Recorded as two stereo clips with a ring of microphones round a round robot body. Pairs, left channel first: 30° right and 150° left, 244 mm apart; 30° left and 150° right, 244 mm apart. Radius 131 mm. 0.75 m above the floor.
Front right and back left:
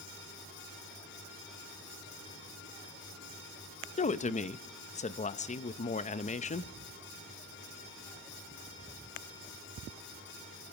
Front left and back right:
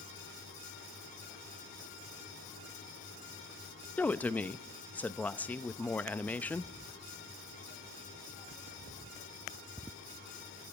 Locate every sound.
4.0 s a woman speaking: 45° right, 0.6 m